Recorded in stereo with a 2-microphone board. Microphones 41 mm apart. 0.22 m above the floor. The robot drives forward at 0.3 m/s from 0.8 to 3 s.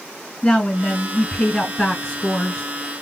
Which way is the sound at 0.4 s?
15° left (ahead or behind).